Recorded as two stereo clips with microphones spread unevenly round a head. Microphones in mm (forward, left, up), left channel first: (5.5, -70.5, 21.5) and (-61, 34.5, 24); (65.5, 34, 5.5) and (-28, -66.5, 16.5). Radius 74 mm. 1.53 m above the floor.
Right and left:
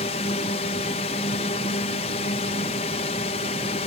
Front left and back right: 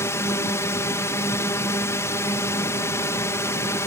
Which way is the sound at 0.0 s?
20° right.